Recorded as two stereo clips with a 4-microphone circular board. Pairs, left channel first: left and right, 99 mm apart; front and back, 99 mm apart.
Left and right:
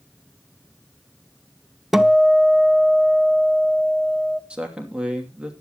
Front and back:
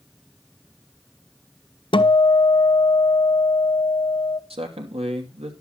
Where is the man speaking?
170° right, 2.5 m.